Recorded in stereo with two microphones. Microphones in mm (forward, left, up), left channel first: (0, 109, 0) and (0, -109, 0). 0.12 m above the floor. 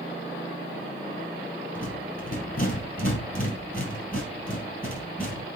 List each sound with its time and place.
1.8 s a rattle: 40° left (ahead or behind), 3 m